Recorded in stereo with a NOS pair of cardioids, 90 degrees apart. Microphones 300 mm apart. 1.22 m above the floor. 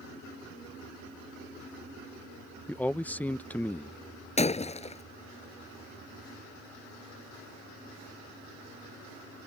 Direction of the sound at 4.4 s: 20° left.